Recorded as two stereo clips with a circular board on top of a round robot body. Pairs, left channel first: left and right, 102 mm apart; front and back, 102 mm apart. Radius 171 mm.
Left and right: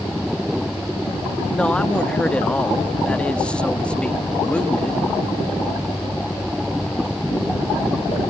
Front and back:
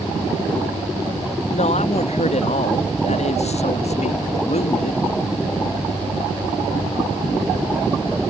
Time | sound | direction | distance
1.5 | a man speaking | 10° left | ?